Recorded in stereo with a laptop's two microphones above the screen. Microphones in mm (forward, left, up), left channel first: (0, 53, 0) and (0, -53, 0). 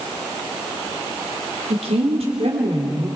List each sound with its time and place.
1.7 s a woman speaking: 80° right, 3 m; by 3.1 s 75° right (ahead or behind), 3.5 m